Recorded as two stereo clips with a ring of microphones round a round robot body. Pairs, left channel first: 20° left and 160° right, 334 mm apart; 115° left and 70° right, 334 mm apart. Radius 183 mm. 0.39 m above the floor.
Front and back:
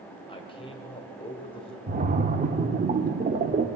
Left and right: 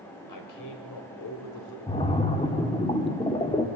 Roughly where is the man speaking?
Left.